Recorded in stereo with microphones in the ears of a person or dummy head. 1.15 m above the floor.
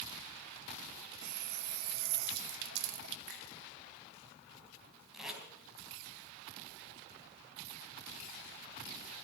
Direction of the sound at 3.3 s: 80° right.